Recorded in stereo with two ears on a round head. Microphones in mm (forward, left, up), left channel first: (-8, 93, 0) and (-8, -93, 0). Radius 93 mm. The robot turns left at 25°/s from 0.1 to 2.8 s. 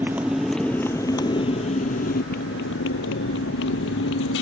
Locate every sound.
0.0 s a motorcycle: 10° right (ahead or behind); by 4.4 s 65° left (ahead or behind)